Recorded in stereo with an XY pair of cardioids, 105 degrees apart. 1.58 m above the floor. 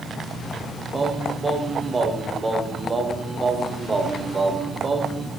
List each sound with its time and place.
0.9 s singing: 25° right, 0.8 m